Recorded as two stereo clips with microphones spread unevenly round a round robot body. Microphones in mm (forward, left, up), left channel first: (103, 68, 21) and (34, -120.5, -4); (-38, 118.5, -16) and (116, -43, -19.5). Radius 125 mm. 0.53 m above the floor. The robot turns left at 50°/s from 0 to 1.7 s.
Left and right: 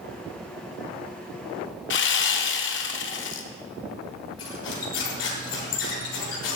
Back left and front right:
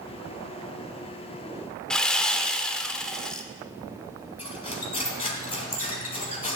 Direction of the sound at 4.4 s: 65° left.